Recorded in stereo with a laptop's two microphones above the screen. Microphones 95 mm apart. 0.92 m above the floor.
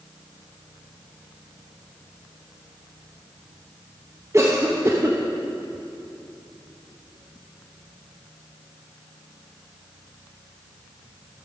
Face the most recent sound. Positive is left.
turn(degrees=-30)  # may be behind; listen again after turning